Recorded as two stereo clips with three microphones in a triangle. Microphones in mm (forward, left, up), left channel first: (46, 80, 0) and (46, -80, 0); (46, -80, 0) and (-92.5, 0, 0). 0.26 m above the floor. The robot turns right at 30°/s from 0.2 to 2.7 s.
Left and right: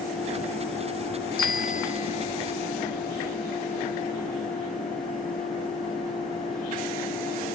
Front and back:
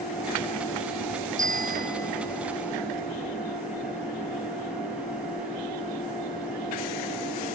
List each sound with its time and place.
1.4 s a bicycle bell: 115° left; by 2.4 s 145° left